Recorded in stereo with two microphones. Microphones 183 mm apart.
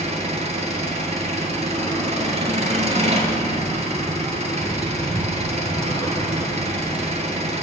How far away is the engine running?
About 0.8 m.